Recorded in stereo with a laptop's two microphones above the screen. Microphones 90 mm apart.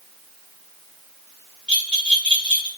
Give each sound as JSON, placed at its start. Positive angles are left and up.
{"t": 1.7, "sound": "a bell", "side_deg": 10, "distance_m": 1.8}